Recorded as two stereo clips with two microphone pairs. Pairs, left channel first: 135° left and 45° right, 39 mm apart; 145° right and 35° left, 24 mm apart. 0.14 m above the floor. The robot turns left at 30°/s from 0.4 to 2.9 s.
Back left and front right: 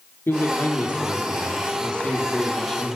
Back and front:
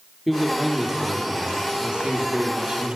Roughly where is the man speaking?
Behind left.